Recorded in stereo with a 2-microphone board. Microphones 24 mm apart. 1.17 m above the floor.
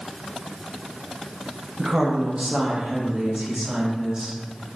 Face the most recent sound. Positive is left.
turn(degrees=-35)  # may be behind; listen again after turning